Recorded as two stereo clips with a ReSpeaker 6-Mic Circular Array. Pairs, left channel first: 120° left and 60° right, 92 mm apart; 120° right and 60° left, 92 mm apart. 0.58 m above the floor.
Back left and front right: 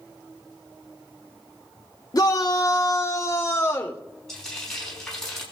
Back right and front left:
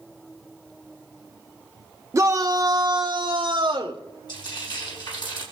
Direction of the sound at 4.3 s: 155° right.